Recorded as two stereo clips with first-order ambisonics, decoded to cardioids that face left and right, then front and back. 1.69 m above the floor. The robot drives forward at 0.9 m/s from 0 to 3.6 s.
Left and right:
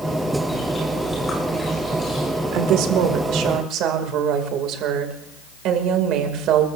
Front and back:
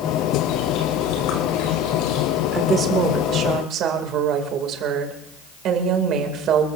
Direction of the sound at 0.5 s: 10° left.